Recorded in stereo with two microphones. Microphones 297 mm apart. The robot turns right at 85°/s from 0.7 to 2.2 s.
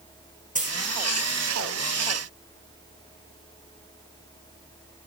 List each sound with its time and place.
0.6 s a dropped coin: 25° right (ahead or behind), 1.3 m; by 0.8 s 15° right (ahead or behind), 1.3 m